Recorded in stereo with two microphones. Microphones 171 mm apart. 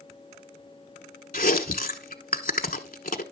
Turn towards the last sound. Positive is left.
turn(degrees=55)  # may be behind; listen again after turning